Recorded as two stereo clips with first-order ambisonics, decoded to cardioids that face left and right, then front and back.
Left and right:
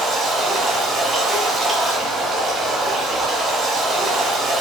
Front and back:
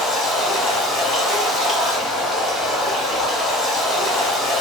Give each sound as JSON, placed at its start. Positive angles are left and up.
{"t": 0.0, "sound": "running water", "azimuth_deg": -40, "distance_m": 1.6}